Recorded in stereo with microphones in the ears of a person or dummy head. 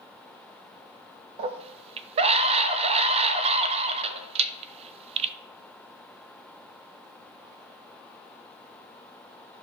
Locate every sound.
1.4 s a scream: 35° right (ahead or behind), 0.6 m